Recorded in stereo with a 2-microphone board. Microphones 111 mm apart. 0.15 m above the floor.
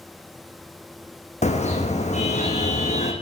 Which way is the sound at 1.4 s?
85° left.